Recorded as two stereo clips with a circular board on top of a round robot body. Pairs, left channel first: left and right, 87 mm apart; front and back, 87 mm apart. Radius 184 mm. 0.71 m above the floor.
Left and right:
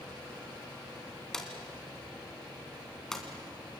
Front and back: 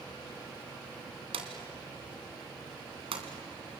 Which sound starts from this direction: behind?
A drawer, at 1.3 s.